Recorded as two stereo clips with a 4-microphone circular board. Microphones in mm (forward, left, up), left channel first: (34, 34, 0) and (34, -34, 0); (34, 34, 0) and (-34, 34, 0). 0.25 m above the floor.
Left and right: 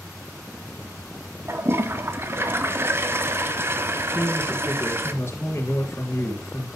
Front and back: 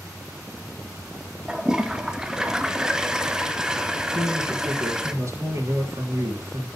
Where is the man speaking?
140° left, 5 m.